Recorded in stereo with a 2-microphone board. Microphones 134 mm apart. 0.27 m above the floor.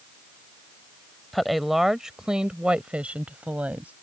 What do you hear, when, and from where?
1.3 s a woman speaking: centre (ahead or behind); by 3.9 s 10° right (ahead or behind)